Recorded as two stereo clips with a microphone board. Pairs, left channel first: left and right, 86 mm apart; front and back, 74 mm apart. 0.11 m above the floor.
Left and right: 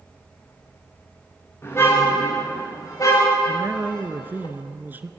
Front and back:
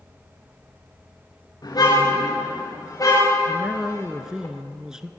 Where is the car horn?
30° left, 8 m; by 4.5 s 50° left, 7.5 m.